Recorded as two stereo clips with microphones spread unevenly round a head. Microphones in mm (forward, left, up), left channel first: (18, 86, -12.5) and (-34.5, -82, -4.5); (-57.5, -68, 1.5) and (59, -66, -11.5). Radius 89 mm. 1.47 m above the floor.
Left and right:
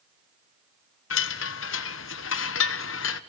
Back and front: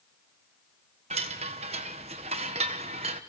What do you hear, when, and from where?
1.1 s a chime: 55° left, 1.2 m